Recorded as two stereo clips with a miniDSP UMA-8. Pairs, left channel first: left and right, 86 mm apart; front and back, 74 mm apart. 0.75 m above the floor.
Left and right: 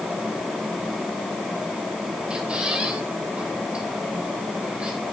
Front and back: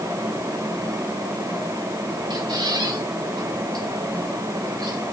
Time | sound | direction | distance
2.3 | a squeak | 165° right | 2.5 m